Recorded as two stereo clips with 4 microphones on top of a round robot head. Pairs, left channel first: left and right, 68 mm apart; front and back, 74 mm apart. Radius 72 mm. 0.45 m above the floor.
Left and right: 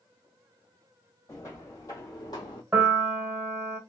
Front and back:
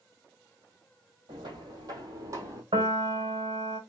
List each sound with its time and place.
1.3 s footsteps: 155° left, 1.5 m; by 2.6 s 130° left, 1.1 m
2.7 s a piano: 155° right, 0.9 m